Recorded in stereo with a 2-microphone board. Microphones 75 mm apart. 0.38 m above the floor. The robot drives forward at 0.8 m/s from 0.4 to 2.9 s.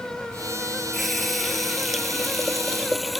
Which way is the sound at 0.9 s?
Centre (ahead or behind).